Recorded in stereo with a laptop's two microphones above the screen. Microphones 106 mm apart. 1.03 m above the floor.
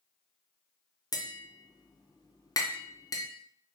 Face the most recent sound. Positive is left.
turn(degrees=35)  # may be behind; listen again after turning